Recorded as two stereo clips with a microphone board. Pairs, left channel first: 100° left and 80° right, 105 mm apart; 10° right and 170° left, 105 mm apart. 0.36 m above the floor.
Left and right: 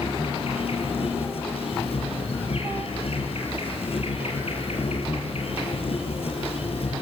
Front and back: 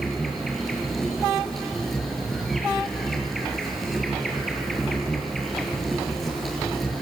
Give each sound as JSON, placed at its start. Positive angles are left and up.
{"t": 0.0, "sound": "an insect", "azimuth_deg": 75, "distance_m": 5.0}